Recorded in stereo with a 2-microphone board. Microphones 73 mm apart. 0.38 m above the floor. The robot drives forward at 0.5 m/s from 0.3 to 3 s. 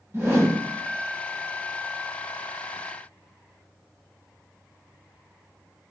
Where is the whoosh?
40° right (ahead or behind), 1.4 m; by 0.6 s 45° right (ahead or behind), 1.3 m.